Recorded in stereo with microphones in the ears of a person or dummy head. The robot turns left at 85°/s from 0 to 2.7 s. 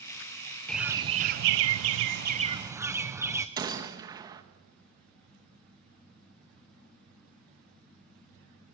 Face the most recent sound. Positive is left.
turn(degrees=-20)  # may be behind; listen again after turning